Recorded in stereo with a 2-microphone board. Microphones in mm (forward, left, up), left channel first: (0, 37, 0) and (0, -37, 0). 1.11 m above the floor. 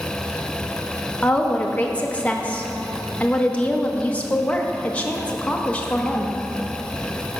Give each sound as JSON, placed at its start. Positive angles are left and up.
{"t": 1.2, "sound": "a woman speaking", "side_deg": 15, "distance_m": 0.9}